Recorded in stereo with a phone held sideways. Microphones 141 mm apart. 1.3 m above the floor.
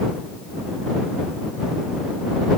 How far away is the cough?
I don't hear a cough.